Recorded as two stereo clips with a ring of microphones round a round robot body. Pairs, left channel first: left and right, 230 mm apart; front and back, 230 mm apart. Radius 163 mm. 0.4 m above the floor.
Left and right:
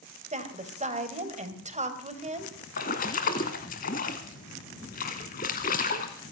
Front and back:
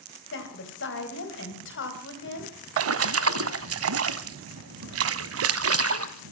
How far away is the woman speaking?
About 2.5 m.